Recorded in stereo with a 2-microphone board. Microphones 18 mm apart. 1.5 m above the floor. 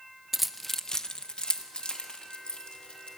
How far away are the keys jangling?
About 0.6 m.